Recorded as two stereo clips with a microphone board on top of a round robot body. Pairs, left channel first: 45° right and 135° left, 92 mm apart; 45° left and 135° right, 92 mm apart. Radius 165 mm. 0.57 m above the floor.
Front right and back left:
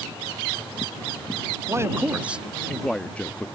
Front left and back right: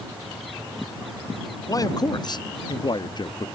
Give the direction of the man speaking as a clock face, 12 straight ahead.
9 o'clock.